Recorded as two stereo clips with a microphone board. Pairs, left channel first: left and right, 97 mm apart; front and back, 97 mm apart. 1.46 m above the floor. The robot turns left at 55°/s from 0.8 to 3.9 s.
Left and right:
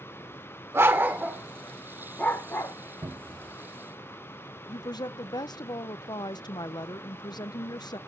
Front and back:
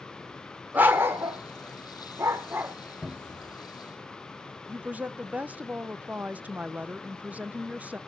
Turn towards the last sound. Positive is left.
turn(degrees=110)